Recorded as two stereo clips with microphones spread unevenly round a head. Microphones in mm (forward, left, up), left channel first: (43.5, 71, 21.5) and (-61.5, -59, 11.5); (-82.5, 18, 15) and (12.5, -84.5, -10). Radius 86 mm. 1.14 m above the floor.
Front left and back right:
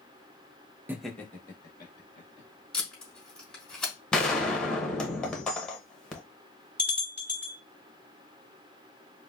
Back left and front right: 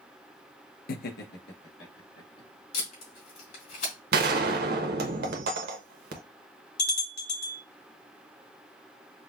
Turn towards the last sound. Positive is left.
turn(degrees=145)